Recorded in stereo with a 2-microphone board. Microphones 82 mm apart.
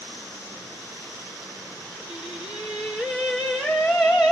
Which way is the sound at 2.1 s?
10° right (ahead or behind).